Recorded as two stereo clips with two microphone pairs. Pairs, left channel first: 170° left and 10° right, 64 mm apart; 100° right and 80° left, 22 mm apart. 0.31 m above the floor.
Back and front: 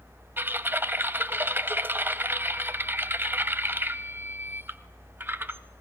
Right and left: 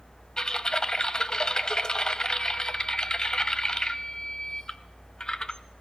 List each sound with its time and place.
0.4 s typing on a keyboard: 55° right, 0.7 m